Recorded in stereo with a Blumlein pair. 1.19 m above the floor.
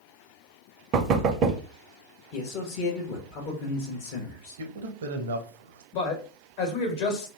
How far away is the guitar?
No guitar in this recording.